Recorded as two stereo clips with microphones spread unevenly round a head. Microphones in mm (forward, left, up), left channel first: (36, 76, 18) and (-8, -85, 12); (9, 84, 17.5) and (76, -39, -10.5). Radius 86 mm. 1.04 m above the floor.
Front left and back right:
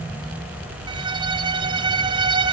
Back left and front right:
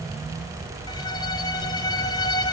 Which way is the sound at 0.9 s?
170° right.